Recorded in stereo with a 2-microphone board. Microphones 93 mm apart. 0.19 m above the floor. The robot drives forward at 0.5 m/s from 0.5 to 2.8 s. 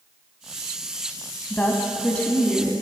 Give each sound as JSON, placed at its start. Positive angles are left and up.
{"t": 1.5, "sound": "a woman speaking", "side_deg": 15, "distance_m": 1.0}